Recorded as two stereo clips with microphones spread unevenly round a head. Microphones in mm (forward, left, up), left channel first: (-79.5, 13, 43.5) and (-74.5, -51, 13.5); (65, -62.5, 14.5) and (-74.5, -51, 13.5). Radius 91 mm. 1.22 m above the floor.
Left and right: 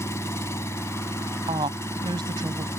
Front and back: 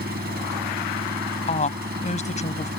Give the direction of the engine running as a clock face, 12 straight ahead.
8 o'clock.